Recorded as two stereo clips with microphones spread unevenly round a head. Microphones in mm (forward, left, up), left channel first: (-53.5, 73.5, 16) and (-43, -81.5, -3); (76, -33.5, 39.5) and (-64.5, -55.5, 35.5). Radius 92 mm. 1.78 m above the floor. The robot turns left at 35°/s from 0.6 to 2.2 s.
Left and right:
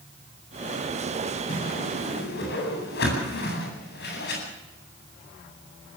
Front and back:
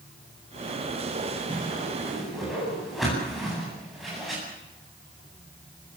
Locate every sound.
1.5 s a whoosh: 125° left, 9 m; by 4.4 s 100° left, 9 m